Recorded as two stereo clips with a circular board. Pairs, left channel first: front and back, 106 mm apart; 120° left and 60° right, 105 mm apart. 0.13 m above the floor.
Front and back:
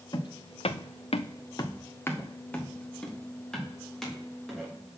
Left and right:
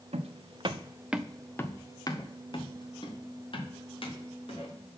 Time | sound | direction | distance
0.1 | footsteps | 45° right | 0.8 m